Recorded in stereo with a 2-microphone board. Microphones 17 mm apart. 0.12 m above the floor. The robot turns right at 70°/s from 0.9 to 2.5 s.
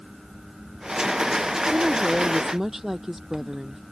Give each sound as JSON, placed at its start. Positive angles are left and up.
{"t": 1.7, "sound": "a woman speaking", "azimuth_deg": -75}